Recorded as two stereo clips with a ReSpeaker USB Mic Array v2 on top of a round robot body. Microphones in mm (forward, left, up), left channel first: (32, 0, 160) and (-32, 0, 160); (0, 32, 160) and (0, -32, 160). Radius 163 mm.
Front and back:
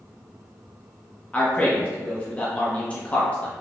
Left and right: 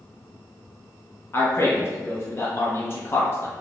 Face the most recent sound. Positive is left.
turn(degrees=60)